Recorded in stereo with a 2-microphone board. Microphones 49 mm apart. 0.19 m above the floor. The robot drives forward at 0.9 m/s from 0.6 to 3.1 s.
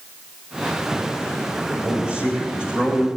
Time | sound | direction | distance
1.7 | a man speaking | 30° right (ahead or behind) | 8.5 m